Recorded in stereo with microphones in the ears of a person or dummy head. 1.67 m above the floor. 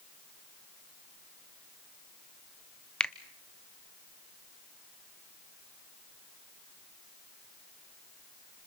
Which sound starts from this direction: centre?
A finger snap, at 3.0 s.